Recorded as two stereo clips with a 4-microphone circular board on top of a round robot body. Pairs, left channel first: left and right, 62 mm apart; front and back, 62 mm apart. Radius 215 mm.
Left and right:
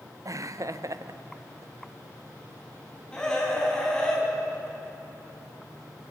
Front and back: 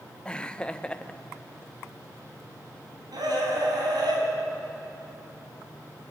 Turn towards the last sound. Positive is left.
turn(degrees=170)